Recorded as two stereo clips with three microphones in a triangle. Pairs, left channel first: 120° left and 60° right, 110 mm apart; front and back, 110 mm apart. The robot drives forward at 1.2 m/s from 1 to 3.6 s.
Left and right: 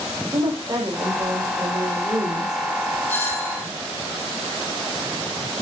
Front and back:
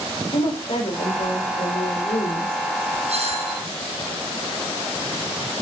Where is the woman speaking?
5° right, 6.5 m.